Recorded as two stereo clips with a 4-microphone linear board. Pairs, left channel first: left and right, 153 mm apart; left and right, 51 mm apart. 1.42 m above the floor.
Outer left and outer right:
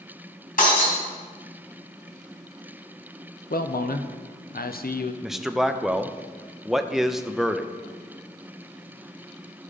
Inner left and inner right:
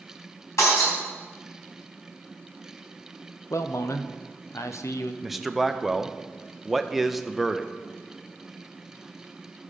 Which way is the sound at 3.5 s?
80° left.